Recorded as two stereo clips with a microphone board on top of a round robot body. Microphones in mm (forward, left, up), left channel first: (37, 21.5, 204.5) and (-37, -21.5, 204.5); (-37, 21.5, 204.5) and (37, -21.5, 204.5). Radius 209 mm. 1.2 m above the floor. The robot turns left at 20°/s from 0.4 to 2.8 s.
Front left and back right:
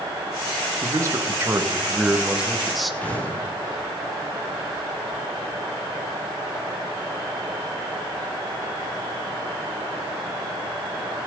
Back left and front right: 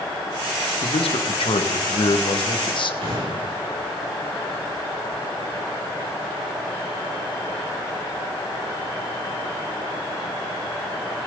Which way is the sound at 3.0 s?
45° right.